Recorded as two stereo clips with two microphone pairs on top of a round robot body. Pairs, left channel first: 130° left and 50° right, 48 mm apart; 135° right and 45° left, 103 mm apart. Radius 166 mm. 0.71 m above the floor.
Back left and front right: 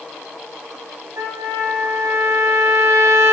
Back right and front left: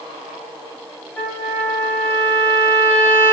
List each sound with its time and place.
1.2 s a trumpet: 65° right, 2 m